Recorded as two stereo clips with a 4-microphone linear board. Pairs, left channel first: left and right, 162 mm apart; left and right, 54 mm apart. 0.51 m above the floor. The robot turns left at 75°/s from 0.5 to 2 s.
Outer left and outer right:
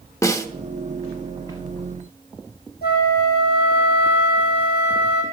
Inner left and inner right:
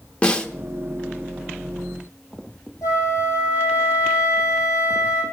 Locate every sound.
0.2 s a snare drum: 20° left (ahead or behind), 0.8 m
2.8 s a flute: 80° left, 3 m